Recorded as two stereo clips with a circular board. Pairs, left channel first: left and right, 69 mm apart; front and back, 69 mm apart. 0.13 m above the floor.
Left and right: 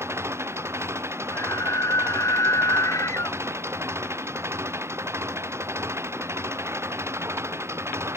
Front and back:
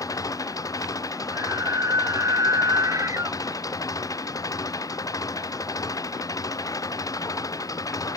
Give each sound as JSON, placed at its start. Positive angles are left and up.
{"t": 0.0, "sound": "an engine running", "azimuth_deg": -35}
{"t": 1.3, "sound": "a scream", "azimuth_deg": 135}